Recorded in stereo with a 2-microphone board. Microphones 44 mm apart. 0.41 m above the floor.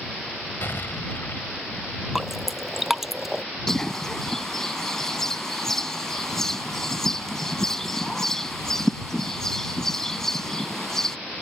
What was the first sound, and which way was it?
An explosion, 60° left (ahead or behind).